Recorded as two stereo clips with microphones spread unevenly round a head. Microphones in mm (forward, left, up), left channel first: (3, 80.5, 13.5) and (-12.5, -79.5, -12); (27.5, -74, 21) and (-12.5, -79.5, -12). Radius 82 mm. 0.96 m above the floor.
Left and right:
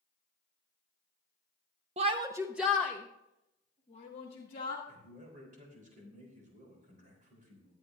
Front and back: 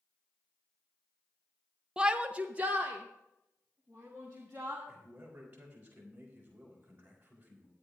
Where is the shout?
135° right, 0.7 m; by 4.8 s 130° left, 1.9 m.